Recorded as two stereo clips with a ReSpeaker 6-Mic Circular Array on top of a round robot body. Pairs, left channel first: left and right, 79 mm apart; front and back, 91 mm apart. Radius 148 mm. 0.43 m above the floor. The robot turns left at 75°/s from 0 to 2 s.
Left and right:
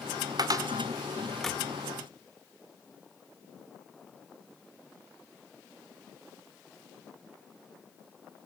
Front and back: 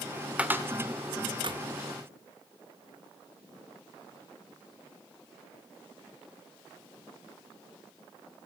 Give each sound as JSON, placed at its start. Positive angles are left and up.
{"t": 0.4, "sound": "a cupboard door", "azimuth_deg": -105, "distance_m": 2.0}